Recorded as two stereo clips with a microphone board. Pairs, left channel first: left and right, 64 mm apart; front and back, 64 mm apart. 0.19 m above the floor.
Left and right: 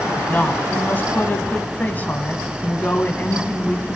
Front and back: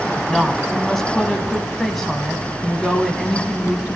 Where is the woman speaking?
80° left, 1.1 m.